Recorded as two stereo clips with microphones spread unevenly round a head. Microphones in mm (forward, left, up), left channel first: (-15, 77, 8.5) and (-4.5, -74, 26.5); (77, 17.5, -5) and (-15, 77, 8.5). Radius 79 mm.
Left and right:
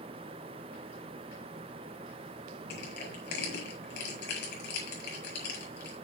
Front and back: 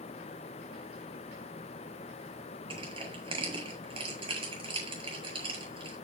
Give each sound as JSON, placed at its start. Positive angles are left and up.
{"t": 2.7, "sound": "crushing", "azimuth_deg": 110, "distance_m": 9.0}